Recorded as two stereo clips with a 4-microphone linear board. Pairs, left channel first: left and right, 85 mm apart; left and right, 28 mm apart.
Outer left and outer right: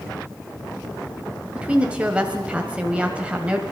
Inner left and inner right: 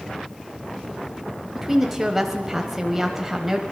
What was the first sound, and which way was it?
A woman speaking, 15° right (ahead or behind).